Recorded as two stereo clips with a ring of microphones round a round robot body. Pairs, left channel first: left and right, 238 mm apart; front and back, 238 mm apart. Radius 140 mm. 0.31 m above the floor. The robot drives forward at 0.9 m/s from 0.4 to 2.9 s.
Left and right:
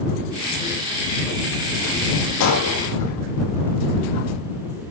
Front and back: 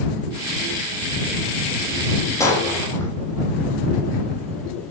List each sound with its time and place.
2.4 s breaking glass: 75° left, 9.5 m; by 3.1 s 80° left, 9.5 m